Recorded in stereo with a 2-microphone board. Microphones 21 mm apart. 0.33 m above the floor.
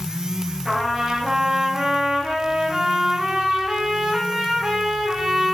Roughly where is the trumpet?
Right.